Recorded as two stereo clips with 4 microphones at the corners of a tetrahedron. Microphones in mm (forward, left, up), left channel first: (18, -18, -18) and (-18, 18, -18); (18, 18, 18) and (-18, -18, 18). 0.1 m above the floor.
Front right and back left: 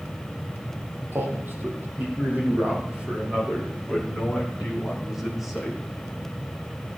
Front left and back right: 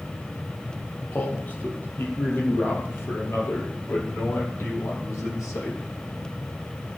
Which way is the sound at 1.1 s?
100° left.